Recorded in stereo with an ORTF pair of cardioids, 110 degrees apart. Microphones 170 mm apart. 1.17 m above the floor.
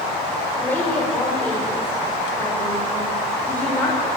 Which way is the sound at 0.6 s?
10° left.